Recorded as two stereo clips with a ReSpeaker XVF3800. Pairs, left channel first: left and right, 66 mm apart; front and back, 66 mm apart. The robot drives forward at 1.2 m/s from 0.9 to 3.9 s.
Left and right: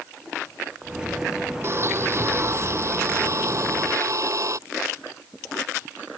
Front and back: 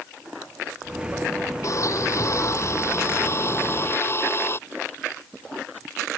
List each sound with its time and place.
1.6 s a blender: 40° right; by 4.6 s 50° right